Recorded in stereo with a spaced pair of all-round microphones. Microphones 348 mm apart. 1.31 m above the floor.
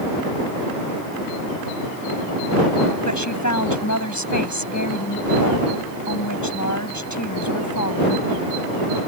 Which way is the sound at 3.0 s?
55° left (ahead or behind).